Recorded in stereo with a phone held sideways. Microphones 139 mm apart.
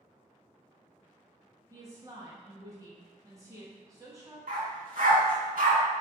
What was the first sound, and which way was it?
A woman speaking, 20° right (ahead or behind).